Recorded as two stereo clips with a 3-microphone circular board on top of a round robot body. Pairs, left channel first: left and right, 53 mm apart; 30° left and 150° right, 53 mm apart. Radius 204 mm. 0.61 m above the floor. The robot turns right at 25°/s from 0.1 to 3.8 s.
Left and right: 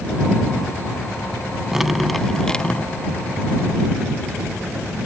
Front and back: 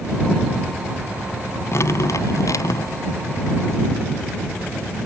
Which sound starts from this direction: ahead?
Dripping, at 1.7 s.